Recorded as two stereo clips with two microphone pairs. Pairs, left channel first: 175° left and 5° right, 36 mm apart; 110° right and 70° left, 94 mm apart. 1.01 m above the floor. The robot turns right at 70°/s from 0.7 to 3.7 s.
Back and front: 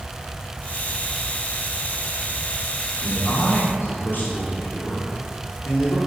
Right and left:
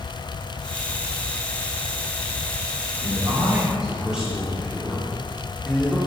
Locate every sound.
3.0 s a man speaking: 110° left, 2 m; by 6.0 s 160° left, 2 m